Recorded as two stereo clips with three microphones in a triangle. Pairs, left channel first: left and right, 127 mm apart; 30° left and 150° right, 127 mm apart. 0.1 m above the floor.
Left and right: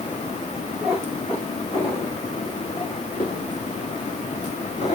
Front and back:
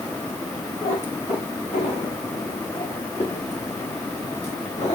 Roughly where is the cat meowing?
Ahead.